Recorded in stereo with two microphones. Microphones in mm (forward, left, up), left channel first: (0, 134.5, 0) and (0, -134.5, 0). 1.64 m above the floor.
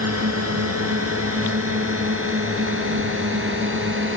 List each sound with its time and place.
0.0 s a drone: 65° right (ahead or behind); by 4.2 s 45° right (ahead or behind)